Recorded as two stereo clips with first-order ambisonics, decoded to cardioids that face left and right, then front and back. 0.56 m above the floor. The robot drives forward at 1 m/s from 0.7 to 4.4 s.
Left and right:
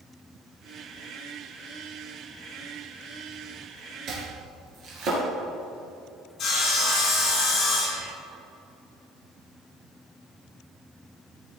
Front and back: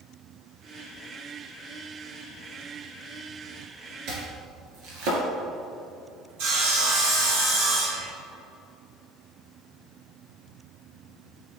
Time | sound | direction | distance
4.1 | chopping | 140° right | 2.5 m
6.4 | sawing | 150° left | 3 m